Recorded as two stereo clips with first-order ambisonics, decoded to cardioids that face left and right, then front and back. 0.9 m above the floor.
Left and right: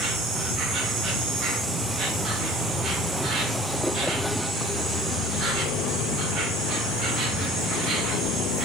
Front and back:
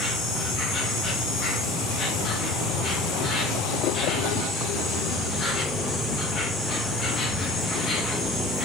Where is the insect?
45° right, 2.5 m.